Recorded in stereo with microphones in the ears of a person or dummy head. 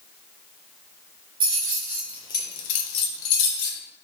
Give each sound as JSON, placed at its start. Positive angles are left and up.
{"t": 1.4, "sound": "keys jangling", "side_deg": -20, "distance_m": 1.2}